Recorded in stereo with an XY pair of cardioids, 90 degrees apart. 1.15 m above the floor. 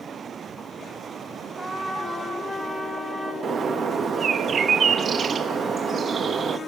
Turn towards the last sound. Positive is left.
turn(degrees=-50)